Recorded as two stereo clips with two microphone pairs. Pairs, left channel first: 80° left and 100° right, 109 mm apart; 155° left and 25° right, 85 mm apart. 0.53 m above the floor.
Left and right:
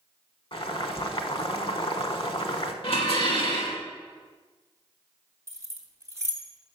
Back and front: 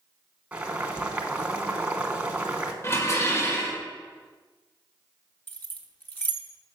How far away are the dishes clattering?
About 1.3 m.